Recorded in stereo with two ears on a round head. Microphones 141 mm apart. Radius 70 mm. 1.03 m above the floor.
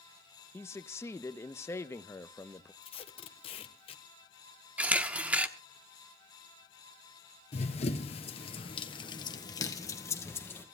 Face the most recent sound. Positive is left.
turn(degrees=15)  # may be behind; listen again after turning